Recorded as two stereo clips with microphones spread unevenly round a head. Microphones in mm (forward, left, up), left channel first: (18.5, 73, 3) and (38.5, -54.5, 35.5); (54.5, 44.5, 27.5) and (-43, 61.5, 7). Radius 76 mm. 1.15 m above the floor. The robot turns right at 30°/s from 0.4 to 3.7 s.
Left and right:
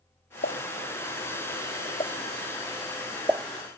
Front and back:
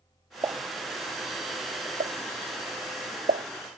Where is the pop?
115° left; by 3.5 s 155° right.